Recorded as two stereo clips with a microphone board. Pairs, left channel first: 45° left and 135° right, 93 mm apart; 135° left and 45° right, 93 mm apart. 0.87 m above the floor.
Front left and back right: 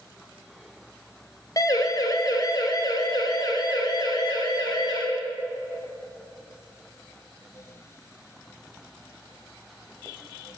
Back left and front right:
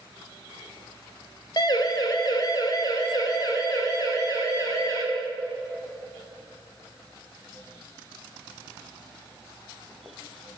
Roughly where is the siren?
Left.